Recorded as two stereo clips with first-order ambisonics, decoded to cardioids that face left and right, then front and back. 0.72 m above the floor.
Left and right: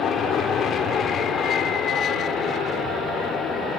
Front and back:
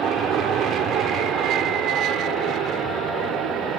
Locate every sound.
0.0 s an aircraft: 135° left; by 3.8 s 145° left